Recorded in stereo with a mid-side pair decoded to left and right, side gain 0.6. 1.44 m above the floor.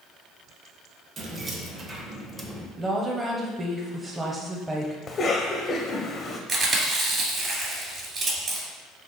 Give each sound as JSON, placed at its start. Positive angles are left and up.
{"t": 1.2, "sound": "keys jangling", "azimuth_deg": -40, "distance_m": 1.3}
{"t": 2.8, "sound": "a woman speaking", "azimuth_deg": -15, "distance_m": 1.0}
{"t": 5.1, "sound": "a cough", "azimuth_deg": 35, "distance_m": 0.6}
{"t": 6.5, "sound": "chewing", "azimuth_deg": -35, "distance_m": 2.0}